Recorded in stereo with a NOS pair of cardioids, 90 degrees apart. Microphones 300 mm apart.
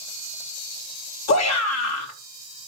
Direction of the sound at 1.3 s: 60° left.